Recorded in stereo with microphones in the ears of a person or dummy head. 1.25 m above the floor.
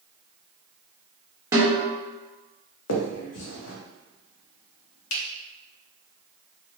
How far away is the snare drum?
About 1.0 m.